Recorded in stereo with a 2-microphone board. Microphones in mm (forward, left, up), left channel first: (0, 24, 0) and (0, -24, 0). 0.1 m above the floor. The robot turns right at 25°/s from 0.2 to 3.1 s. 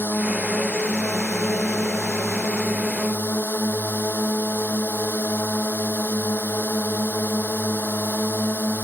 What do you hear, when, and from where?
0.0 s a drone: 50° left; by 8.8 s 125° left